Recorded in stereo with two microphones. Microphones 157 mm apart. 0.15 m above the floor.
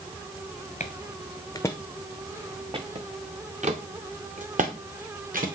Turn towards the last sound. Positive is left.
turn(degrees=-60)  # may be behind; listen again after turning